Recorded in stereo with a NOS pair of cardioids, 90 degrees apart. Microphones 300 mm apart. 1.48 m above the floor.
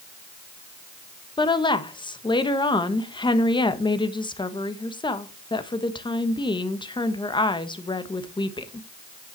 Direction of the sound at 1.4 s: 15° left.